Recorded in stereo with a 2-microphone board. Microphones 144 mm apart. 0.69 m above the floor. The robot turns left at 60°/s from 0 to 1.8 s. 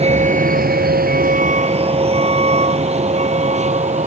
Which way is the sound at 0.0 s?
45° right (ahead or behind).